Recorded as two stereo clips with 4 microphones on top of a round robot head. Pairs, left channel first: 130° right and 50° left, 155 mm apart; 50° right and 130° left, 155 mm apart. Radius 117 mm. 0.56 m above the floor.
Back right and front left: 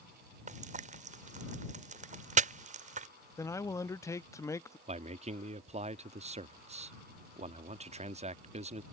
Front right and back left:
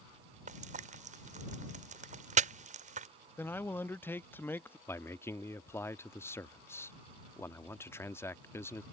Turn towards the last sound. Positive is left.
turn(degrees=20)